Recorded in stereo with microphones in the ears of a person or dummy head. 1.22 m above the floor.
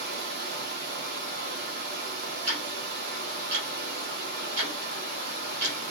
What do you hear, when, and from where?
0.0 s running water: 60° right (ahead or behind), 1.1 m
2.5 s ticking: 55° right (ahead or behind), 2.5 m